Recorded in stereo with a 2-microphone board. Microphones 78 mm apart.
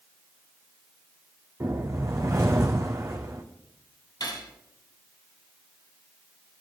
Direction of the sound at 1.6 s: 40° right (ahead or behind).